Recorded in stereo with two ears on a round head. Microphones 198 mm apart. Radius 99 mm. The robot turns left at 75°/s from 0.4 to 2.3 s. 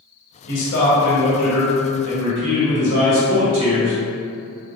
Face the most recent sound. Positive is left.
turn(degrees=-75)